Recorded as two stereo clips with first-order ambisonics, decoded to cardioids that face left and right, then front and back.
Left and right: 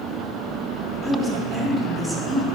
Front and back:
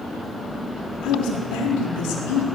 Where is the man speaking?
15° left, 4 m; by 2.5 s 5° right, 4 m.